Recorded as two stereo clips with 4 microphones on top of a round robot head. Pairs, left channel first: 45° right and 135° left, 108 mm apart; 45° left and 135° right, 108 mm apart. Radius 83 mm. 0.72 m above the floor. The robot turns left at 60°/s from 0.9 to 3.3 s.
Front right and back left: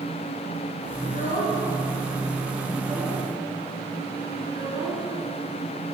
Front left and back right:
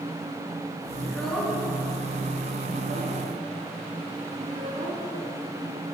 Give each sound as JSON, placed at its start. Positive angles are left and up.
{"t": 1.0, "sound": "a child speaking", "azimuth_deg": -25, "distance_m": 6.5}